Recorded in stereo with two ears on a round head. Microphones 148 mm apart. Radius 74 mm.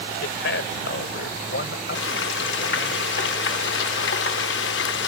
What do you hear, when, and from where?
0.2 s a man speaking: 75° left (ahead or behind); by 3.0 s 65° left (ahead or behind)
1.9 s frying: 75° left (ahead or behind)